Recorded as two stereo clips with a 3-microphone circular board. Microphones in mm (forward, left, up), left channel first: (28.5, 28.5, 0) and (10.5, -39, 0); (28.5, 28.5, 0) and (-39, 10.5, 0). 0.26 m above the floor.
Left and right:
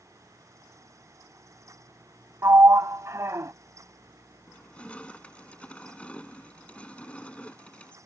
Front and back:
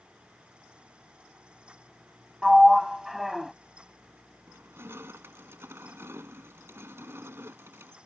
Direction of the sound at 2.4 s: 80° right.